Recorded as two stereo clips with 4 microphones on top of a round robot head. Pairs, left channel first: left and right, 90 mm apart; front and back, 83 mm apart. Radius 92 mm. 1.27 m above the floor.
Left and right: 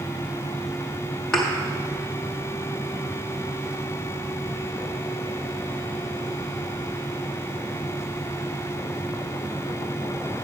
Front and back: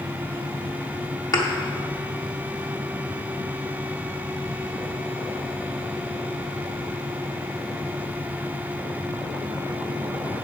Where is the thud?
5° left, 0.6 m.